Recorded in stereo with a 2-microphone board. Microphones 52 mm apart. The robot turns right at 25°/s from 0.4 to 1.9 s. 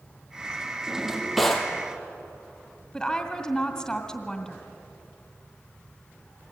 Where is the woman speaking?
10° left (ahead or behind), 2 m.